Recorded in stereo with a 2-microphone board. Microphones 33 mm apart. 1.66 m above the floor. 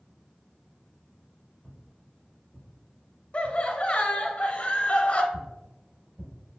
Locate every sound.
1.6 s footsteps: centre (ahead or behind), 1.7 m; by 4.3 s 35° right (ahead or behind), 2.5 m
3.3 s laughter: 40° left (ahead or behind), 0.8 m
5.3 s footsteps: 35° right (ahead or behind), 1.9 m